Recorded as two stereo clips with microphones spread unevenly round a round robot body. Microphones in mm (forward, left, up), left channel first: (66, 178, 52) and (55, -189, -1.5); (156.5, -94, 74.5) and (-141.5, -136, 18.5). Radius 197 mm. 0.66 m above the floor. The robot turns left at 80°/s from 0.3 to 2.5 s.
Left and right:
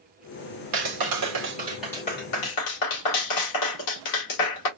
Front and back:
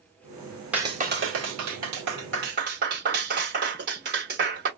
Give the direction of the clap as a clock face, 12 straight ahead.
3 o'clock.